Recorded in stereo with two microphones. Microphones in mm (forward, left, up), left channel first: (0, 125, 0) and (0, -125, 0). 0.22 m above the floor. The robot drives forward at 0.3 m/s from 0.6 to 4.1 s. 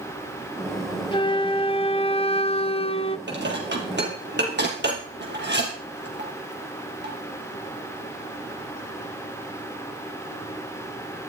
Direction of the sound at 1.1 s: 20° left (ahead or behind).